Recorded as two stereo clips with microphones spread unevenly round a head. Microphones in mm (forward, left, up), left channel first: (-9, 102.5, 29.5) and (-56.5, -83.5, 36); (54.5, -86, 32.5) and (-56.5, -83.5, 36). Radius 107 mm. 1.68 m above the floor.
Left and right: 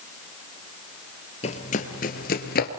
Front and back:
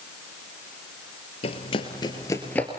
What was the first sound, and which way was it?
Running footsteps, 25° left.